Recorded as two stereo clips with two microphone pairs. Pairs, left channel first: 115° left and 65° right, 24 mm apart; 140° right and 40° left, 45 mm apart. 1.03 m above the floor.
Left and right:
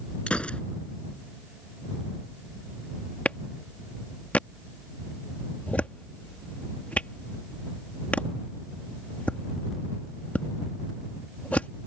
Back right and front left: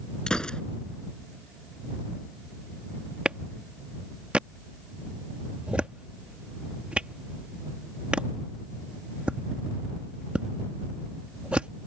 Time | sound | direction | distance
0.3 | a gunshot | 150° left | ?
3.2 | a clap | 110° left | ?